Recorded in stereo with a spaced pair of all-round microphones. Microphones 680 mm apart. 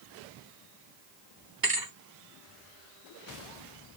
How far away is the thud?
About 1.1 m.